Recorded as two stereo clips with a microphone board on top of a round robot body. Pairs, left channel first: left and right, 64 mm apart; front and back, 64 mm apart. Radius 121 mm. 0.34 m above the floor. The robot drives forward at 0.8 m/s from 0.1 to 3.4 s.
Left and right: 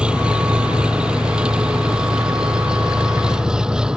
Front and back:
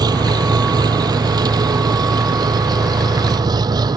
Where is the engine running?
165° right; by 4.0 s 170° right.